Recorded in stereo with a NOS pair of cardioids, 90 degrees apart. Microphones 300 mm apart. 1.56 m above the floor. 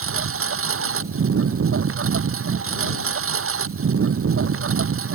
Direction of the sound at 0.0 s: 45° right.